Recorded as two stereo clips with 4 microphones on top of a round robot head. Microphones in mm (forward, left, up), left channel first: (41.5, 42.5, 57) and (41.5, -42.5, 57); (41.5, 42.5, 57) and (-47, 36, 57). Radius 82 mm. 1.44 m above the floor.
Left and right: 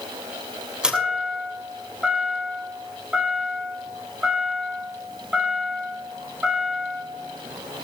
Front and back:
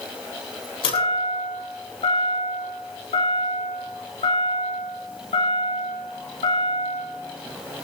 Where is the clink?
I don't hear a clink.